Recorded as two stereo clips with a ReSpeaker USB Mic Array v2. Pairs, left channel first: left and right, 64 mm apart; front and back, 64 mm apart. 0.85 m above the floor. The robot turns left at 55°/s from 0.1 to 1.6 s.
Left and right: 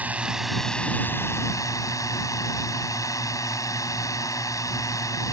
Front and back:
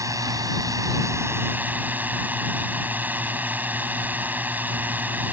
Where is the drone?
160° right; by 5.3 s 120° left.